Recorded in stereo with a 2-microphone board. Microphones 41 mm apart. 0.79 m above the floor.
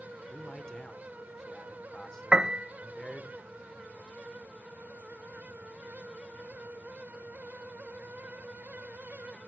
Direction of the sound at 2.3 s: 20° right (ahead or behind).